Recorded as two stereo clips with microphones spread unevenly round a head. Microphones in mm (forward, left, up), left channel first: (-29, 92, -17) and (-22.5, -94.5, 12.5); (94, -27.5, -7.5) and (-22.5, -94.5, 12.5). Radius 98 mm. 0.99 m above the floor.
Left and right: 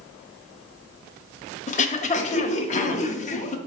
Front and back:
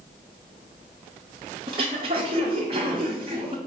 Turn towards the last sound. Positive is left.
turn(degrees=150)